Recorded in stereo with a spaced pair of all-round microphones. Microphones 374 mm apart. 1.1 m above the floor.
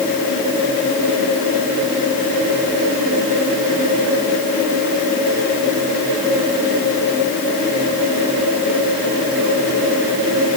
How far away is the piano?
No piano in this recording.